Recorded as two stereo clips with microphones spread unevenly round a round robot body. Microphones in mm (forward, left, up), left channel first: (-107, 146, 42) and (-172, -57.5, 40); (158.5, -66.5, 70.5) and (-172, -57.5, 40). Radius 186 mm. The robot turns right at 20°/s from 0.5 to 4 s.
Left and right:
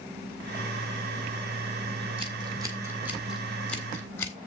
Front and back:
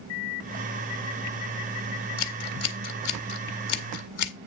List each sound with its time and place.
2.2 s scissors: 45° right, 1.6 m; by 4.3 s 10° right, 1.6 m